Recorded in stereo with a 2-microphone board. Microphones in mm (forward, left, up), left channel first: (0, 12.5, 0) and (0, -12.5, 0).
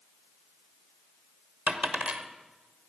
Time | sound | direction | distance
1.7 | a dropped coin | 85° right | 1.3 m